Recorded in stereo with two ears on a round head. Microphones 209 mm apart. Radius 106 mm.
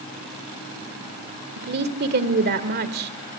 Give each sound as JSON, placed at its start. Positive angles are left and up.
{"t": 1.6, "sound": "a woman speaking", "side_deg": -45, "distance_m": 2.0}